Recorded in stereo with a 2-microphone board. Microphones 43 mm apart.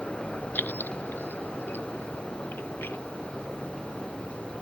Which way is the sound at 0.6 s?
40° left (ahead or behind).